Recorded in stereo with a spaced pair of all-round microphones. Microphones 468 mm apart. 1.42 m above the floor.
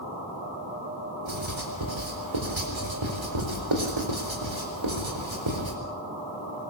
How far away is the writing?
About 4.5 m.